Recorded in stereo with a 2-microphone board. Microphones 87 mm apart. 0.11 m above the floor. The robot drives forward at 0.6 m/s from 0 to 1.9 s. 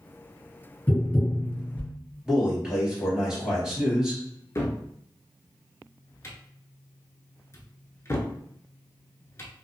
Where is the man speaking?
10° right (ahead or behind), 2.0 m.